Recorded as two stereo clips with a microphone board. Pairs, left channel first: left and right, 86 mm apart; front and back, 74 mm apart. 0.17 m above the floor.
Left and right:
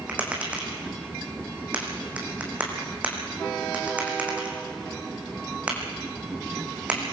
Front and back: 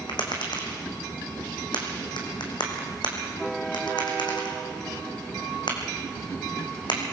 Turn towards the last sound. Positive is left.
turn(degrees=-15)